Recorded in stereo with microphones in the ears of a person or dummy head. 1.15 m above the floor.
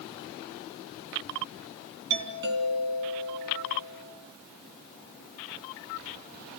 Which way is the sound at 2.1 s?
60° right (ahead or behind).